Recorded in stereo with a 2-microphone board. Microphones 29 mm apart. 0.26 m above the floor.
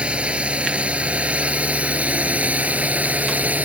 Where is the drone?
40° right (ahead or behind); by 3.7 s 60° right (ahead or behind).